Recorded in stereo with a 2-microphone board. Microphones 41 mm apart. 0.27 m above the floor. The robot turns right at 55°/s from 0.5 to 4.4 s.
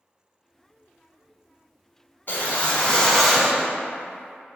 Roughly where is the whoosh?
Behind left.